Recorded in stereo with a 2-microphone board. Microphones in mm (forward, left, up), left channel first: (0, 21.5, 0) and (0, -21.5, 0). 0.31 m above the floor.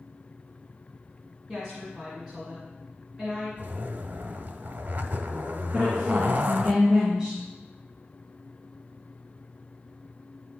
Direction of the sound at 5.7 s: 15° right (ahead or behind).